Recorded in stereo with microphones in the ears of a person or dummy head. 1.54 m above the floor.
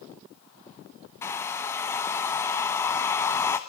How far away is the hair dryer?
About 1.0 m.